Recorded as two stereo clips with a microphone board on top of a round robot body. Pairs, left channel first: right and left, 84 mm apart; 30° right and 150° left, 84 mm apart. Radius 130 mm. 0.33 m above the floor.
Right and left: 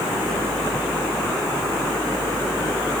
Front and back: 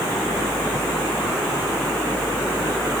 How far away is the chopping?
I don't hear chopping.